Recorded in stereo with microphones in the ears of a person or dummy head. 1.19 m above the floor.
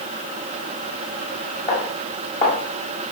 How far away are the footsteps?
About 2.5 m.